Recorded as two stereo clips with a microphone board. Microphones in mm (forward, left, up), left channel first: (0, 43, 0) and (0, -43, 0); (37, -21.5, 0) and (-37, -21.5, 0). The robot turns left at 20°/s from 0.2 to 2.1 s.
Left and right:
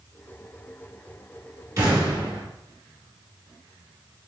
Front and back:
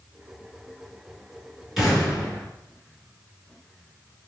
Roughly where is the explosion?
Right.